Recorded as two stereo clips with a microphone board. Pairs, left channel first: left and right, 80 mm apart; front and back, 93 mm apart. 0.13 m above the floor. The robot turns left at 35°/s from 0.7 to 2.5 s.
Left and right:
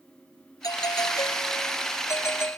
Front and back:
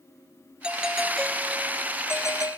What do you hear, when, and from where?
0.6 s a doorbell: 105° left; by 2.6 s 40° left